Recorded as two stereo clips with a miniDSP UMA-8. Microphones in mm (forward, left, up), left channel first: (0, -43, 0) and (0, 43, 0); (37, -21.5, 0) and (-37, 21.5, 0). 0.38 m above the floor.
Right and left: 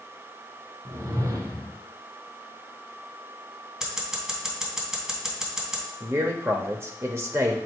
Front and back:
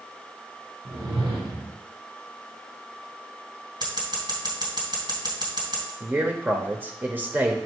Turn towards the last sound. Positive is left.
turn(degrees=105)